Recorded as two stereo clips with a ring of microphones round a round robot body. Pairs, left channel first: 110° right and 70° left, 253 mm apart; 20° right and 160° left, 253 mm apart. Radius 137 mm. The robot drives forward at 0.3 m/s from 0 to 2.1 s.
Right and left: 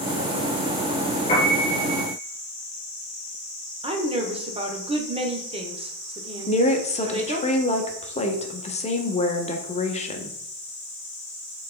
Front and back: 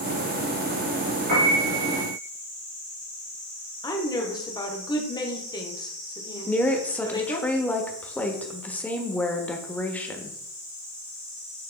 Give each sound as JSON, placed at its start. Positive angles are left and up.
{"t": 1.3, "sound": "a piano", "azimuth_deg": 175, "distance_m": 3.0}
{"t": 3.8, "sound": "a woman speaking", "azimuth_deg": 35, "distance_m": 1.2}
{"t": 6.5, "sound": "a woman speaking", "azimuth_deg": -100, "distance_m": 1.0}